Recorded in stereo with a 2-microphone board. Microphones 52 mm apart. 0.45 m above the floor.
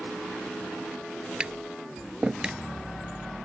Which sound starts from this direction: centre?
Tapping, at 1.4 s.